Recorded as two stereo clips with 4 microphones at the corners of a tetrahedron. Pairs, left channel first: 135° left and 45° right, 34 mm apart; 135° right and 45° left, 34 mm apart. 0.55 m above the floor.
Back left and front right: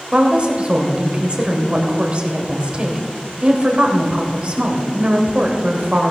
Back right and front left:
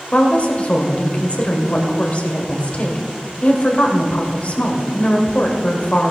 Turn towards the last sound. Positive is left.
turn(degrees=-95)